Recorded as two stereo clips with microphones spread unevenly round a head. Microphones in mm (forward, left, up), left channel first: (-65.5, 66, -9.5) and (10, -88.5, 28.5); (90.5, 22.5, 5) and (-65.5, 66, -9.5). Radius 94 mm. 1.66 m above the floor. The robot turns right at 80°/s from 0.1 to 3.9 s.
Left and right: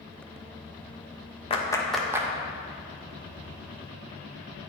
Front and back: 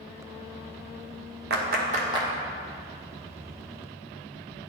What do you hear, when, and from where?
1.5 s a clap: 175° left, 0.7 m; by 2.3 s 120° right, 0.7 m